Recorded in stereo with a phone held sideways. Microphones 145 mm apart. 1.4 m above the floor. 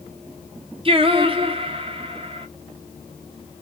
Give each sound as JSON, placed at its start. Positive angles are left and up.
{"t": 0.8, "sound": "singing", "side_deg": -40, "distance_m": 0.9}